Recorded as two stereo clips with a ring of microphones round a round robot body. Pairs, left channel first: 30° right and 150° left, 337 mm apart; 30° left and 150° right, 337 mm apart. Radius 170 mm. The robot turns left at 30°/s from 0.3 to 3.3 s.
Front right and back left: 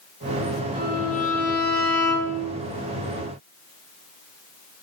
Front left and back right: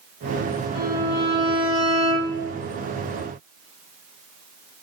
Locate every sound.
0.8 s a violin: 45° left, 0.7 m; by 2.4 s 5° right, 0.7 m